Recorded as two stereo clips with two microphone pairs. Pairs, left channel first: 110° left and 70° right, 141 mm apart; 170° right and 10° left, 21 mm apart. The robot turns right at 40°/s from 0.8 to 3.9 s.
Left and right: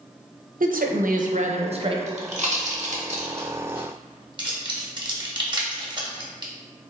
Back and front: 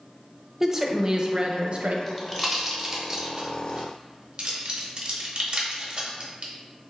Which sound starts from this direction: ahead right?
A woman speaking, at 0.6 s.